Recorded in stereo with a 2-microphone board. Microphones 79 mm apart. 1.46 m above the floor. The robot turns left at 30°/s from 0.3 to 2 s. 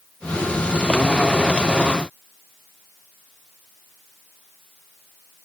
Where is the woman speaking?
No woman speaking in this recording.